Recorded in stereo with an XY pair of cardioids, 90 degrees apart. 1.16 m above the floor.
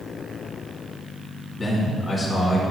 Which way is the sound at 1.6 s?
25° left.